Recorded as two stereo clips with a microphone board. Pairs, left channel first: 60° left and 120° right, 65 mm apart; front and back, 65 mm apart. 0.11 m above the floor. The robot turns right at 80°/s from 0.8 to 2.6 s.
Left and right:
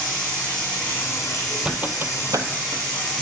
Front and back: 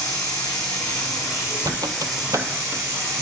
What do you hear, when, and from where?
0.0 s running water: 10° right, 3.5 m; by 3.2 s 135° left, 3.5 m
1.6 s a squeak: 160° left, 0.6 m; by 3.2 s 125° right, 0.6 m